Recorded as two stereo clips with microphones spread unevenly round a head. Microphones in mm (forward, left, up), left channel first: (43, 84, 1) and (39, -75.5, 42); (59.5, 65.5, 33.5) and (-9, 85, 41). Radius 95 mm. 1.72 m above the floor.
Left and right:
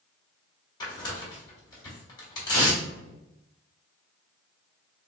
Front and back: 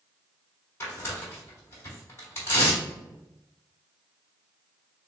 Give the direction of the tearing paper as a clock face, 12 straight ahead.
11 o'clock.